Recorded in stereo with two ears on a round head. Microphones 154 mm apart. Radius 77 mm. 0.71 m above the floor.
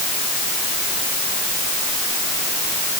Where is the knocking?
I don't hear knocking.